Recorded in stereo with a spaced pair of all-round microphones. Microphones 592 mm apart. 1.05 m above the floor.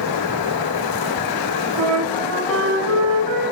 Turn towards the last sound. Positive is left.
turn(degrees=-50)  # may be behind; listen again after turning